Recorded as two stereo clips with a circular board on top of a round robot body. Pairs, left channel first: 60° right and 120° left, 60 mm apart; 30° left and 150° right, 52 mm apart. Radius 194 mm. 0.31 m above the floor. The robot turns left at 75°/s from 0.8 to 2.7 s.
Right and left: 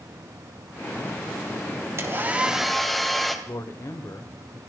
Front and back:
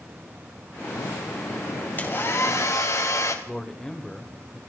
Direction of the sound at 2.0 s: 80° left.